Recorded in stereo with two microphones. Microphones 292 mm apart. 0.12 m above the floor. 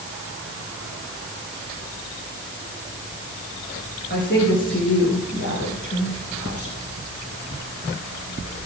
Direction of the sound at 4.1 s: 40° left (ahead or behind).